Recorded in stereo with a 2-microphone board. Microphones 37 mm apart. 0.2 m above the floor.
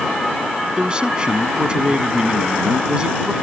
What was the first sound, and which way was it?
A man speaking, 25° right (ahead or behind).